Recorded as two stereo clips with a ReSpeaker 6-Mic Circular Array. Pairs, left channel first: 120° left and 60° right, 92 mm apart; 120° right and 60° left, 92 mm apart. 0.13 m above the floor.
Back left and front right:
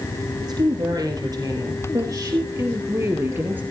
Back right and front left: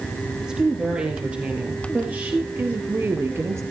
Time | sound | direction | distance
0.4 | a woman speaking | 20° right | 4.5 m